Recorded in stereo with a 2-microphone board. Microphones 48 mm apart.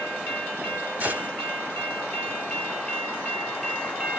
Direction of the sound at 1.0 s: 35° right (ahead or behind).